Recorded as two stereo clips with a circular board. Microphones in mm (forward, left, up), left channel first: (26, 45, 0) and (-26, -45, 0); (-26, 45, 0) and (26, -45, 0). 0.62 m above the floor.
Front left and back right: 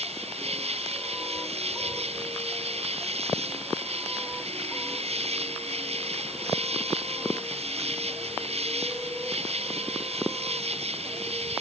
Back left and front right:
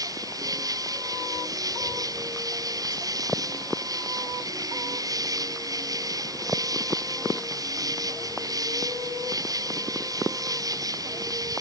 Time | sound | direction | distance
0.0 | an insect | 115° right | ?